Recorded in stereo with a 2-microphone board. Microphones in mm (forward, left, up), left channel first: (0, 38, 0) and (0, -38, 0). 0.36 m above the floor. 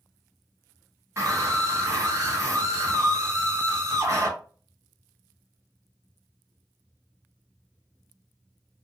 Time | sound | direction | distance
1.2 | a scream | 40° right (ahead or behind) | 1.3 m